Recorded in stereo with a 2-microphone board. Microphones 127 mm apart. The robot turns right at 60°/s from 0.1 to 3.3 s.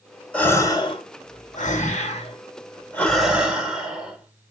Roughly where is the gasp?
Ahead.